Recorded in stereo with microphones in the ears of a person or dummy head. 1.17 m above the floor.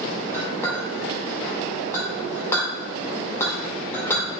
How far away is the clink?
About 2 m.